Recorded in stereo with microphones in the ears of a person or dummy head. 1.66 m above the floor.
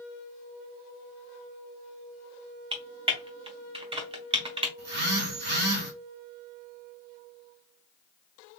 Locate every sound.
2.7 s typing on a keyboard: 30° right (ahead or behind), 0.6 m
4.8 s a phone buzzing: 50° right (ahead or behind), 0.6 m